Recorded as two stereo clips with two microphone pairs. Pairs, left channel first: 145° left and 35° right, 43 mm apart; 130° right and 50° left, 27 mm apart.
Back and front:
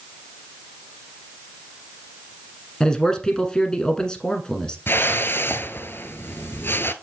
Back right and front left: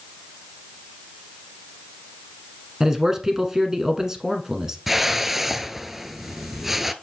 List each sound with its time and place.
2.8 s a man speaking: 95° left, 1.3 m
4.9 s a whoosh: 130° left, 0.6 m